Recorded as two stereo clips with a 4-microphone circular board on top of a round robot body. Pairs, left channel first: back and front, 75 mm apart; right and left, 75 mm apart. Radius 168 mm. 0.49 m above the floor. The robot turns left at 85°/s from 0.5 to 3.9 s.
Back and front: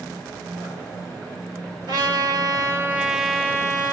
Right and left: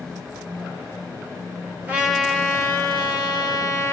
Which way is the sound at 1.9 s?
20° left.